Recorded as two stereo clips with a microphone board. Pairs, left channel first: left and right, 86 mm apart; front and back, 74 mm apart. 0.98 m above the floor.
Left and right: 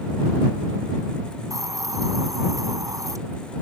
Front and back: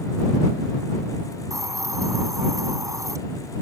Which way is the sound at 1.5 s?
140° right.